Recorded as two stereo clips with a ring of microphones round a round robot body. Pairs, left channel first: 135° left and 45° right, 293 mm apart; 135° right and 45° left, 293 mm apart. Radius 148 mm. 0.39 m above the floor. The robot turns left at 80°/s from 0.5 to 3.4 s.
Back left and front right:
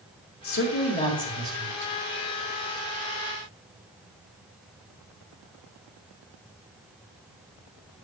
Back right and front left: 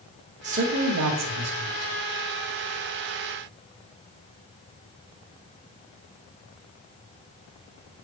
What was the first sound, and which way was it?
A man speaking, 105° left.